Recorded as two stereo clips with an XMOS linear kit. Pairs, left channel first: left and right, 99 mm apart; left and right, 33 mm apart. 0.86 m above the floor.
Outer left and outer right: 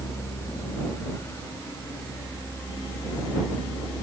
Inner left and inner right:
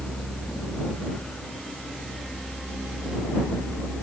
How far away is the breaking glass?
I don't hear breaking glass.